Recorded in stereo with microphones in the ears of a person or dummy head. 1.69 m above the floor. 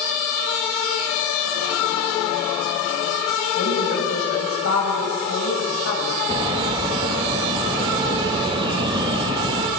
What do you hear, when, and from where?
3.5 s a woman speaking: 85° left, 9 m
6.3 s a bird: 25° right (ahead or behind), 1.3 m